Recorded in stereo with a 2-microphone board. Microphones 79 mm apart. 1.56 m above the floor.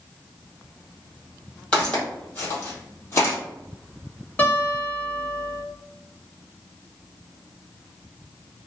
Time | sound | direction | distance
1.7 | footsteps | 20° left (ahead or behind) | 2.0 m
4.4 | a guitar | 20° left (ahead or behind) | 1.4 m